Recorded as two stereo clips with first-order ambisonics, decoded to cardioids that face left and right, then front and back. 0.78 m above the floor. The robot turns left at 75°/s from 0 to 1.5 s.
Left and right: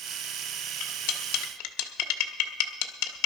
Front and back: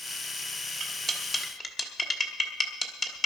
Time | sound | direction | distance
0.8 | cutlery clinking | 125° left | 1.2 m